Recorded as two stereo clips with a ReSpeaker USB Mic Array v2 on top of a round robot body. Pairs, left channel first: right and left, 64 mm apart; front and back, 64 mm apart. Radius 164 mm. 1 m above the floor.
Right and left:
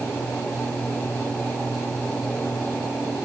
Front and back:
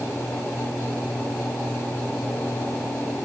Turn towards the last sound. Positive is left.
No sound to turn to.